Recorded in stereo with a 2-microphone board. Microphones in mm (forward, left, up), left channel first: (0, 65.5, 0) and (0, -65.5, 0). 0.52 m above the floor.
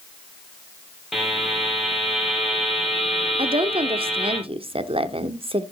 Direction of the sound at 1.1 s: Centre (ahead or behind).